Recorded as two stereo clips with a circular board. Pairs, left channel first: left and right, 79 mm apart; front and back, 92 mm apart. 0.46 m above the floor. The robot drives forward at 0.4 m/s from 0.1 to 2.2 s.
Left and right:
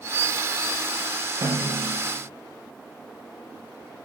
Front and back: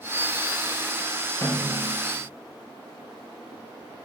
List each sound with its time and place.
1.4 s a snare drum: 55° right, 3 m; by 2.0 s 60° right, 2.5 m